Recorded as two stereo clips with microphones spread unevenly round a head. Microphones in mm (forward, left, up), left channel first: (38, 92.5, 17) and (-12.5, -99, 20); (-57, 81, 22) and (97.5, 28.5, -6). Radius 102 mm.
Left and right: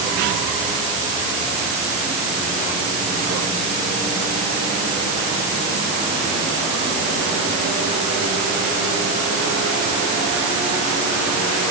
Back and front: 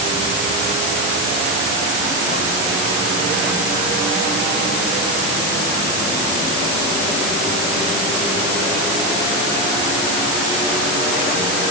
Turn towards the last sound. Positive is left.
No sound to turn to.